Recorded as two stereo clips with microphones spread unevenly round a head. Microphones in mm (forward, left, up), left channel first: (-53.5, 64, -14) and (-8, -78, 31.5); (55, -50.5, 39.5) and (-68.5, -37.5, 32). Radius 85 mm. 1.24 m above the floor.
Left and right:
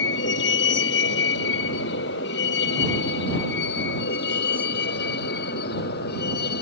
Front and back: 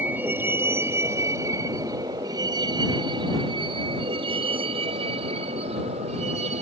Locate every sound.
0.0 s a vehicle: 95° left; by 6.6 s 125° left